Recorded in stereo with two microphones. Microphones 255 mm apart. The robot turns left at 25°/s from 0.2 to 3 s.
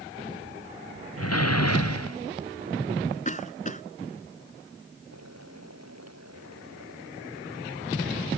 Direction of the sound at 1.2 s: 70° left (ahead or behind).